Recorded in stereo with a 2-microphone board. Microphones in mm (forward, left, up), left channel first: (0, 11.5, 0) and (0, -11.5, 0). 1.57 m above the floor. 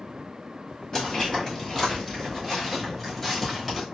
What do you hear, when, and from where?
0.9 s footsteps: 25° left (ahead or behind), 1.8 m; by 3.9 s 5° right (ahead or behind), 1.6 m